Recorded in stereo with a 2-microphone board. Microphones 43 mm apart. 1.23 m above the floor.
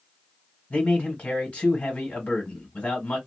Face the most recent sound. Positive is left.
turn(degrees=35)  # may be behind; listen again after turning